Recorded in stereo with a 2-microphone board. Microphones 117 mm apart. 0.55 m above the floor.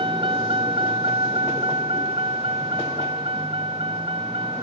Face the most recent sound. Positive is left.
turn(degrees=-50)  # may be behind; listen again after turning